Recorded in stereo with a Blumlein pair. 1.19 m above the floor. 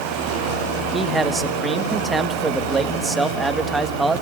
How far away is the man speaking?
About 1.4 m.